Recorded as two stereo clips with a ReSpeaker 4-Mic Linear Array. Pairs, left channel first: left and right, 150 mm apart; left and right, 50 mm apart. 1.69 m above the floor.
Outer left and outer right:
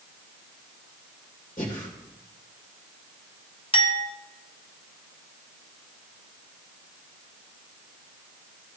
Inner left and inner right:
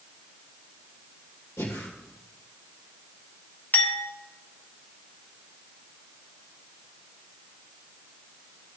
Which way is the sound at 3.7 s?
35° left (ahead or behind).